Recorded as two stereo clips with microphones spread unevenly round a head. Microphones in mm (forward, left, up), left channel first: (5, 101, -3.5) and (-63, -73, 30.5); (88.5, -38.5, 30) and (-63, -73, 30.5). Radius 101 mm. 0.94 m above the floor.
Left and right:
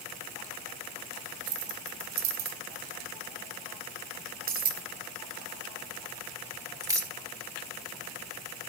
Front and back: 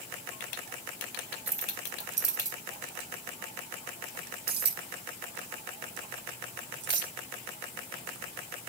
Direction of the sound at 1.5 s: 120° right.